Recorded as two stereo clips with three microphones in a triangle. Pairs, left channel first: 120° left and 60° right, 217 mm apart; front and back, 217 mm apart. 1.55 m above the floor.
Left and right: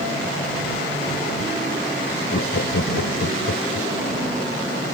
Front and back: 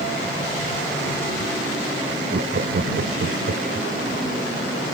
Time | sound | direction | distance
2.3 | laughter | 140° left | ?